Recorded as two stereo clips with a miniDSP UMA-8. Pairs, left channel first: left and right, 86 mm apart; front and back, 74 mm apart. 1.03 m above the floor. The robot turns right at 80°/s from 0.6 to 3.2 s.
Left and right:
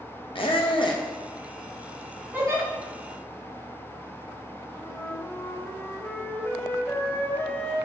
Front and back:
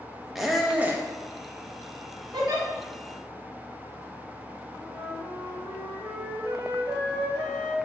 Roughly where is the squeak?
Left.